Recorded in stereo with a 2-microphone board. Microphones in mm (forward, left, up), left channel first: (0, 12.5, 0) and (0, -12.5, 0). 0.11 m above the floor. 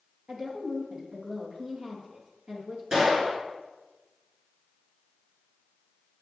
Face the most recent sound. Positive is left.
turn(degrees=-30)  # may be behind; listen again after turning